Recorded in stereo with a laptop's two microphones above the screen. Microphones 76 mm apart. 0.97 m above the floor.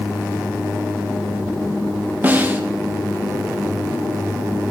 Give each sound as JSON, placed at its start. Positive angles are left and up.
{"t": 2.2, "sound": "a snare drum", "side_deg": -25, "distance_m": 0.6}